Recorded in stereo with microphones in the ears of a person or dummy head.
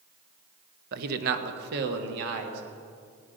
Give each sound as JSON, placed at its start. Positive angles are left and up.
{"t": 0.9, "sound": "a man speaking", "side_deg": -60, "distance_m": 1.0}